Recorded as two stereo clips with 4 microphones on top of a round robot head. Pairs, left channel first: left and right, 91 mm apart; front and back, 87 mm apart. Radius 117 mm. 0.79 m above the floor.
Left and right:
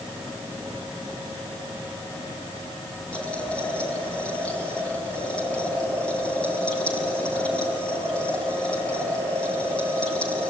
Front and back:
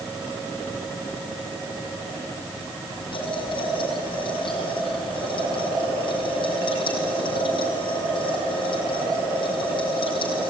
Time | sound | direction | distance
3.1 | boiling | 15° left | 6 m